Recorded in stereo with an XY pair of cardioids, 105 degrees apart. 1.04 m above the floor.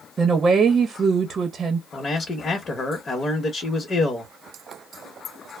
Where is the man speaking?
40° left, 1.0 m.